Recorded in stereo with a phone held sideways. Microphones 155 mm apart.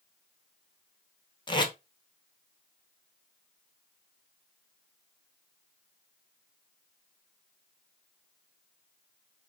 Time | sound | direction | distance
1.5 | tape being pulled | 30° left (ahead or behind) | 0.6 m